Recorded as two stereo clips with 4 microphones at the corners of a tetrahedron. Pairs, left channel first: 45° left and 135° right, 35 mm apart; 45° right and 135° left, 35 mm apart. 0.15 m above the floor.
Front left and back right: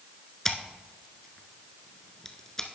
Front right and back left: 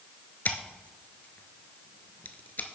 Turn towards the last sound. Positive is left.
turn(degrees=-30)